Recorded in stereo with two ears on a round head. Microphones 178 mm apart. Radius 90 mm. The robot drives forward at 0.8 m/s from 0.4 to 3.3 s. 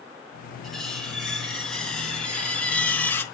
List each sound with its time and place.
0.6 s cutlery clinking: 5° left (ahead or behind), 3 m; by 3.2 s 10° left (ahead or behind), 0.8 m